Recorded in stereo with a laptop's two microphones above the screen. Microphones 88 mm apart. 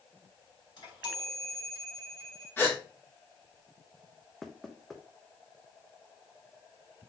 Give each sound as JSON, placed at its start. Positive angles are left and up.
{"t": 0.8, "sound": "a chime", "side_deg": 55, "distance_m": 2.5}
{"t": 2.6, "sound": "a gasp", "side_deg": 25, "distance_m": 1.6}
{"t": 4.4, "sound": "knocking", "side_deg": 0, "distance_m": 0.6}